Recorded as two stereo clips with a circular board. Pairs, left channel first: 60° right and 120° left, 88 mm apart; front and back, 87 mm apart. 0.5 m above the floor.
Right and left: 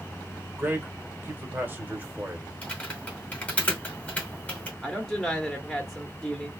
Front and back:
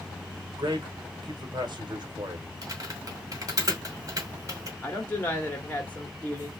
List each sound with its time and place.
0.6 s a man speaking: 175° right, 1.3 m
2.6 s typing on a keyboard: 135° right, 1.7 m
4.8 s a woman speaking: 25° left, 1.1 m